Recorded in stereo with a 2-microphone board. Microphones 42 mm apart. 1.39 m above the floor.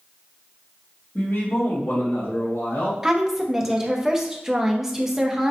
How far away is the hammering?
No hammering in this recording.